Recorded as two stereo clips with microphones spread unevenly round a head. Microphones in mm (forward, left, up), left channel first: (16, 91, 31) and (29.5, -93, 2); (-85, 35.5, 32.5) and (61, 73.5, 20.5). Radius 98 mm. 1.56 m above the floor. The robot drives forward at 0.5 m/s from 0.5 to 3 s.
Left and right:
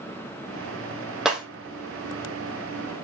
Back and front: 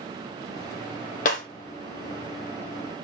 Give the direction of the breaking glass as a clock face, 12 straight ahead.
6 o'clock.